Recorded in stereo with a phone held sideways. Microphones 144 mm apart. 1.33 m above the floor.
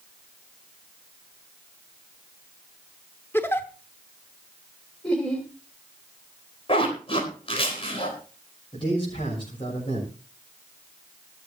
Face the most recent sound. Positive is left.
turn(degrees=40)  # may be behind; listen again after turning